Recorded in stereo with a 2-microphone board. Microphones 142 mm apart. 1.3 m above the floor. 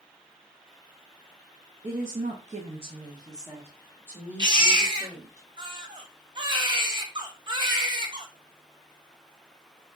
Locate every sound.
1.8 s a woman speaking: 55° right (ahead or behind), 0.5 m; by 5.4 s 10° right (ahead or behind), 2 m
4.4 s a baby crying: 35° right (ahead or behind), 0.6 m